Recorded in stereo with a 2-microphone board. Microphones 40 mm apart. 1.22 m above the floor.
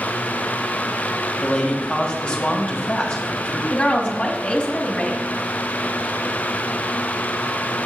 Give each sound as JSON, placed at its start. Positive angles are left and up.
{"t": 1.4, "sound": "a man speaking", "side_deg": 15, "distance_m": 2.0}
{"t": 3.7, "sound": "a woman speaking", "side_deg": 20, "distance_m": 1.8}